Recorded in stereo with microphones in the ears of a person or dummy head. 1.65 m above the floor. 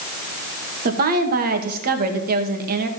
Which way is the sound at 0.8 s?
50° right (ahead or behind).